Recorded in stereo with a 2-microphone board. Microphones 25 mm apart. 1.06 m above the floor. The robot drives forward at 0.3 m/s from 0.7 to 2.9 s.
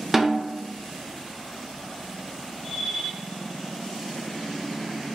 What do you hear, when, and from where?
0.1 s a snare drum: 15° right (ahead or behind), 0.6 m